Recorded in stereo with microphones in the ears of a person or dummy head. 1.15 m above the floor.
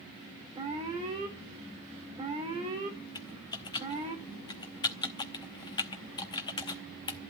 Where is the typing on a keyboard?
20° left (ahead or behind), 0.8 m.